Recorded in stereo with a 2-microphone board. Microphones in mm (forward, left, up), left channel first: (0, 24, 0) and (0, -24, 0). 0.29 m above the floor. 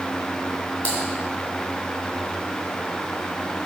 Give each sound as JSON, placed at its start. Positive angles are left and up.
{"t": 0.8, "sound": "typing on a keyboard", "side_deg": 30, "distance_m": 2.5}